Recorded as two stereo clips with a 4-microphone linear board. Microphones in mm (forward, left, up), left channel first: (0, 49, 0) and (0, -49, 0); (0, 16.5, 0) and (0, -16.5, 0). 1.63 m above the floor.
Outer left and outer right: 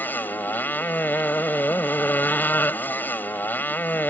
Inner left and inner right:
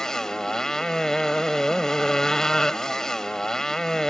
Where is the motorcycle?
20° left (ahead or behind).